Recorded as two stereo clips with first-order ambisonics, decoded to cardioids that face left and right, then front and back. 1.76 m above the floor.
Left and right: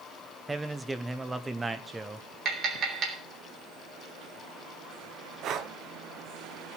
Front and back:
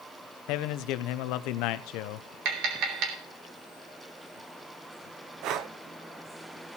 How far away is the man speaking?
About 0.8 m.